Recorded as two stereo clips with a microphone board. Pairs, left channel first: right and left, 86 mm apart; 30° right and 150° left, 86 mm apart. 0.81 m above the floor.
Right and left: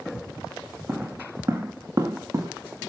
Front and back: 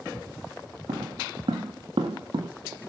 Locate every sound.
0.9 s footsteps: 155° left, 4 m; by 2.5 s 140° left, 4 m